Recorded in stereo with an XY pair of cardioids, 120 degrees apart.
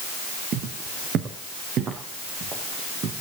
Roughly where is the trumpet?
No trumpet in this recording.